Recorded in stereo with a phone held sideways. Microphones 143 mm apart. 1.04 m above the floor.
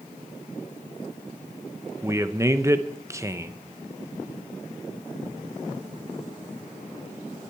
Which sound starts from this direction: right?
A man speaking, at 2.0 s.